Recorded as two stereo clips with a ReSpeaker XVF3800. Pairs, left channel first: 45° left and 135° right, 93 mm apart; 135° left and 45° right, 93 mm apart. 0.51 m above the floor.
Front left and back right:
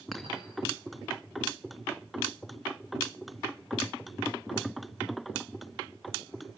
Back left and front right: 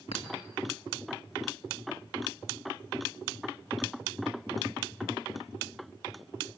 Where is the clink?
135° left, 2.5 m.